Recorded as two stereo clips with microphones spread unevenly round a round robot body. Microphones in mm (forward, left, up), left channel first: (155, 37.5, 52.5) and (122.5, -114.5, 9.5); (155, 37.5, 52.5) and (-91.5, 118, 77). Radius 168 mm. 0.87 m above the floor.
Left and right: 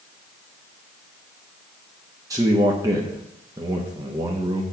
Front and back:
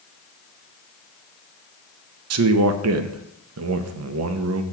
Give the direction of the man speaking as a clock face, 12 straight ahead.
6 o'clock.